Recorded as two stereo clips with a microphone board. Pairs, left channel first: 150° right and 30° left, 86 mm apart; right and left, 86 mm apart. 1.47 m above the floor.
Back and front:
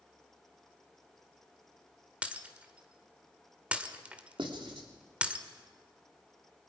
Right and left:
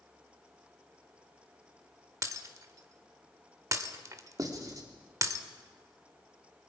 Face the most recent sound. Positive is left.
turn(degrees=45)